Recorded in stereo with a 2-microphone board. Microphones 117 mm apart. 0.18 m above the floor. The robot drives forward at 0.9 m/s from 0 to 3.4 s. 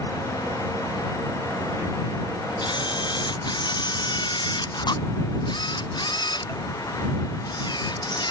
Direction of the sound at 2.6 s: 40° left (ahead or behind).